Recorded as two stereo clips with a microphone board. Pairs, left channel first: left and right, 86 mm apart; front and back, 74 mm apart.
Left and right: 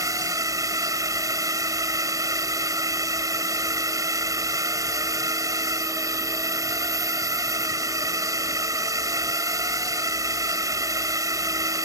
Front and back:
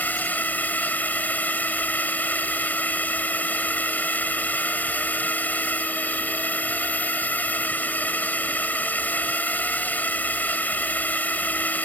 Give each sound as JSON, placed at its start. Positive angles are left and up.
{"t": 0.0, "sound": "a drone", "azimuth_deg": -60}